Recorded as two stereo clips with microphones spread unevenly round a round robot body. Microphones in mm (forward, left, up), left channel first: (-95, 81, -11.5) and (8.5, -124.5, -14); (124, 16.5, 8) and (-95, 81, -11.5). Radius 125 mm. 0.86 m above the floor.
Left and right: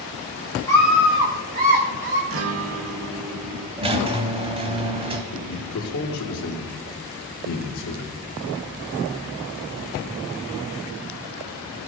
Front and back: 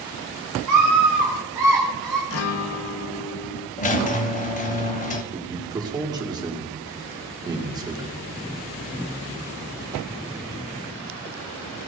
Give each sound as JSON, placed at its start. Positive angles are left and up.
{"t": 0.7, "sound": "a scream", "azimuth_deg": -165, "distance_m": 1.4}
{"t": 2.3, "sound": "a guitar", "azimuth_deg": -40, "distance_m": 0.7}
{"t": 3.8, "sound": "a squeak", "azimuth_deg": -10, "distance_m": 0.8}
{"t": 5.3, "sound": "a man speaking", "azimuth_deg": 90, "distance_m": 2.0}